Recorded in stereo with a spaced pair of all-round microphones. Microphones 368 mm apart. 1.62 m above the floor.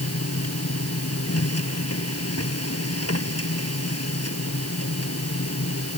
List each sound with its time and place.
0.0 s a machine running: 40° left (ahead or behind)